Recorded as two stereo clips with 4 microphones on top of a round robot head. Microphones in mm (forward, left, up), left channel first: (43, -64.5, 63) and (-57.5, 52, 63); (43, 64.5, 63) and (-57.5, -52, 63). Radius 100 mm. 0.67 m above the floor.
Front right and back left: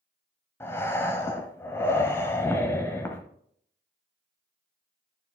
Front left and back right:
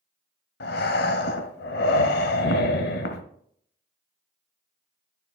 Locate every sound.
0.6 s breathing: 25° left, 0.9 m